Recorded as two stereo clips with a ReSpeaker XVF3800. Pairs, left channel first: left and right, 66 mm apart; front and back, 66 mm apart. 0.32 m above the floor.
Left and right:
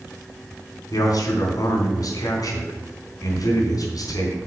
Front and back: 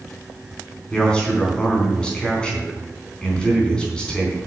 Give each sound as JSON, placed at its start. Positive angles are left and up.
{"t": 0.9, "sound": "a man speaking", "azimuth_deg": 75, "distance_m": 4.0}